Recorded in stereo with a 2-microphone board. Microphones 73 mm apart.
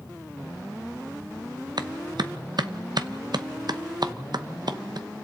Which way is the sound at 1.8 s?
70° right (ahead or behind).